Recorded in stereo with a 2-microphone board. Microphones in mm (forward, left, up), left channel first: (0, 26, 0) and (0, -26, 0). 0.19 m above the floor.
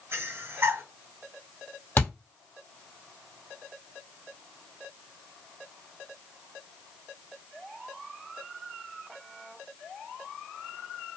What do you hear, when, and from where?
0.1 s breathing: 50° right (ahead or behind), 1.8 m
2.0 s a thud: 35° left (ahead or behind), 1.6 m